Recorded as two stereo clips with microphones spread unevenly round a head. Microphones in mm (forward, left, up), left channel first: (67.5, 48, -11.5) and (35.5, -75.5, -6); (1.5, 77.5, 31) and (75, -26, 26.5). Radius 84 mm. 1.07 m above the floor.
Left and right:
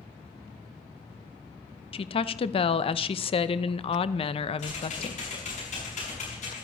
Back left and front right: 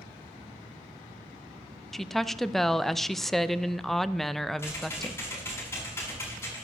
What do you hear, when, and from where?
1.9 s a woman speaking: 35° left, 0.6 m
4.6 s typing on a keyboard: 55° left, 6.5 m